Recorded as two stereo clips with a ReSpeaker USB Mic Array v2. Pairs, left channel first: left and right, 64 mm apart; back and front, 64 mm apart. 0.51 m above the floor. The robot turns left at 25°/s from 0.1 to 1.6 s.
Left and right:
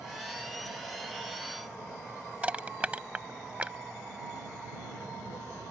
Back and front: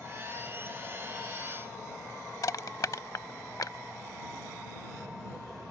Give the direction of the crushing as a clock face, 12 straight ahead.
5 o'clock.